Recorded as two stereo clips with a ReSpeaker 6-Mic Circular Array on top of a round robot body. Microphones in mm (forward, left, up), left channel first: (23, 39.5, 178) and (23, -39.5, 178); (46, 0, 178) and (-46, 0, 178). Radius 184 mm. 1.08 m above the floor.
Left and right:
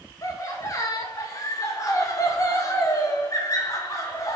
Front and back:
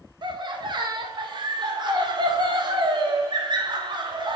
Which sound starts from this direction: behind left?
Laughter, at 0.2 s.